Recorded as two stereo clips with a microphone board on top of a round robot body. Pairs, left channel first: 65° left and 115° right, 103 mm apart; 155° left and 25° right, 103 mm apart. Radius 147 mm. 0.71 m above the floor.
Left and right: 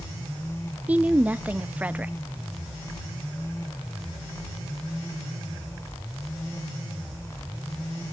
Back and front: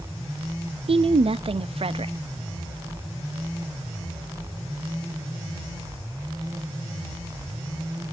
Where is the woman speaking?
40° right, 0.8 m.